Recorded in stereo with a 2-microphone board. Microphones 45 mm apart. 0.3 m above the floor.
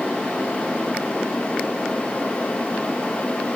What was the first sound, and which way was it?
Only background noise.